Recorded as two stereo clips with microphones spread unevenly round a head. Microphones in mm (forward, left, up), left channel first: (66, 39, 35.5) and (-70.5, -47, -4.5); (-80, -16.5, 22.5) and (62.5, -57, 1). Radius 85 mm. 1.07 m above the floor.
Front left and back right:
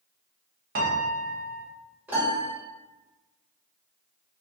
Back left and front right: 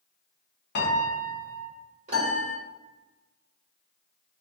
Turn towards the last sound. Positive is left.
turn(degrees=-60)